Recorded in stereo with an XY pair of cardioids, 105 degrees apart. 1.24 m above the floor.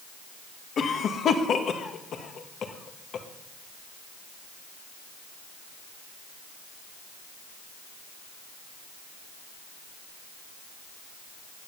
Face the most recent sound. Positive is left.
turn(degrees=55)